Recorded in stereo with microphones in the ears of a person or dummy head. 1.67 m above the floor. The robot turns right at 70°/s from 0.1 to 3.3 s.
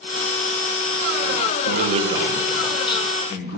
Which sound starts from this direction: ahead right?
A man speaking, at 1.6 s.